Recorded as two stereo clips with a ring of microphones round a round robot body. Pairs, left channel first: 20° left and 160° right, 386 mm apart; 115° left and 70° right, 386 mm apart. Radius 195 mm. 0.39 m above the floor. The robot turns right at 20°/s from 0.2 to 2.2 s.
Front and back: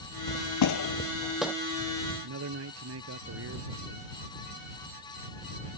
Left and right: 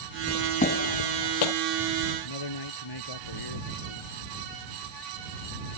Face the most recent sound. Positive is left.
turn(degrees=145)